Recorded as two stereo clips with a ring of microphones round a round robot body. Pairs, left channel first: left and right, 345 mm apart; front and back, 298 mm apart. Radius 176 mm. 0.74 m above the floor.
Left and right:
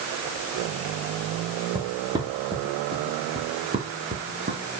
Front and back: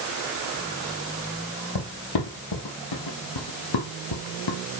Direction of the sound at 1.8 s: 10° right.